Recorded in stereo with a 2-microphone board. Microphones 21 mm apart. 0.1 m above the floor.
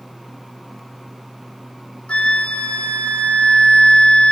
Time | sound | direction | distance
2.1 | a flute | 75° left (ahead or behind) | 1.6 m